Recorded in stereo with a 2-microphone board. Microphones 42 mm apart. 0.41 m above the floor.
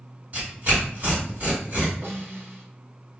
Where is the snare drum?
70° right (ahead or behind), 0.8 m.